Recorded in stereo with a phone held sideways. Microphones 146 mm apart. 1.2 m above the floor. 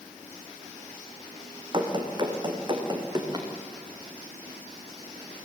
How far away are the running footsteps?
About 3 m.